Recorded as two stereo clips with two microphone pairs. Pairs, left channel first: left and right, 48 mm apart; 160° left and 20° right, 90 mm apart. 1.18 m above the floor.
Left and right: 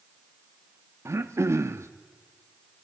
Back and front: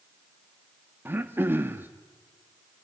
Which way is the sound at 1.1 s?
85° right.